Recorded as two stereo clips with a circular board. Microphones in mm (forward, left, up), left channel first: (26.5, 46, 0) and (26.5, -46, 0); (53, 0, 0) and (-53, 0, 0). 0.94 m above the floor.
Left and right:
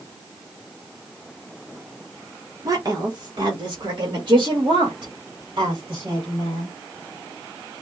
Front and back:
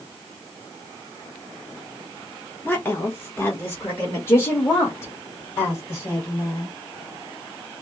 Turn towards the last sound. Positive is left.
turn(degrees=-65)